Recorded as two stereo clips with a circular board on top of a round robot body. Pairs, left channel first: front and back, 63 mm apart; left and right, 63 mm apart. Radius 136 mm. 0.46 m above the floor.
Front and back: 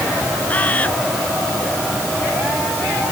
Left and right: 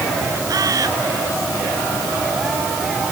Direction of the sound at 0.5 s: 65° right.